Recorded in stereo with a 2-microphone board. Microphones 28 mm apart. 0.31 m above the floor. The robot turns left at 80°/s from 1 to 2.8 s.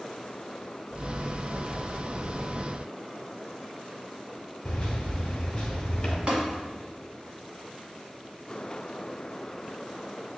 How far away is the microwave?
About 1.0 m.